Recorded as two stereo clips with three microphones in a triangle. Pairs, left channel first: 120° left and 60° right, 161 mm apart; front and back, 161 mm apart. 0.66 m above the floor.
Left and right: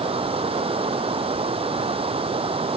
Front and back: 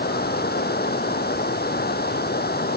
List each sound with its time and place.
0.0 s running water: 5° right